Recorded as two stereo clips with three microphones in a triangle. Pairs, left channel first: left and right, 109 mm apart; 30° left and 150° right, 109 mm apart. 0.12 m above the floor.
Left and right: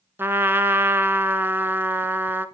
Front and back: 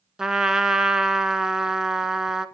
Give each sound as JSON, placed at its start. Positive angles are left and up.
{"t": 0.2, "sound": "a trumpet", "azimuth_deg": -75, "distance_m": 0.8}